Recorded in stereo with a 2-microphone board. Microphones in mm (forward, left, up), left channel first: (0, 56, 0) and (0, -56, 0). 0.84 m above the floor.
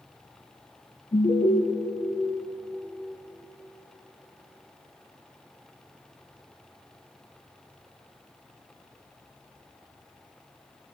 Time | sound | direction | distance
1.1 | an alarm | 65° left (ahead or behind) | 2 m